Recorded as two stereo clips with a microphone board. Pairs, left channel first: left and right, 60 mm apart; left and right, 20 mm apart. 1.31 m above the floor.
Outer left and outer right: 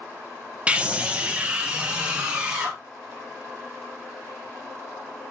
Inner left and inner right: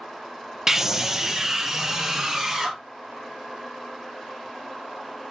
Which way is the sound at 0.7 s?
20° right (ahead or behind).